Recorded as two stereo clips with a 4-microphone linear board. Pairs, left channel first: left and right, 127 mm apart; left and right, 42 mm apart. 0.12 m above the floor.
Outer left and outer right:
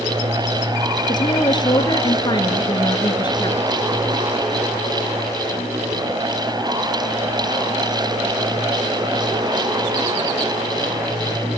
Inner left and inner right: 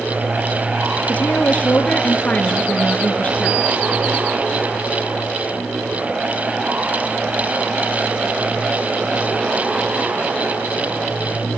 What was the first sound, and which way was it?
A woman speaking, 35° left (ahead or behind).